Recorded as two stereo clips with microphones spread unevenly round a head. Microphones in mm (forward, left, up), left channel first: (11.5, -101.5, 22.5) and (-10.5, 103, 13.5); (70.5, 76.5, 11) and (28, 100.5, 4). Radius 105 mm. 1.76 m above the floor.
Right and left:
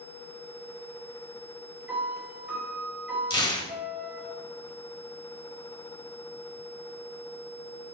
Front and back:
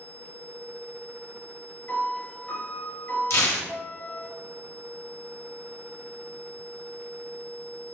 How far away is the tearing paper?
About 1.9 m.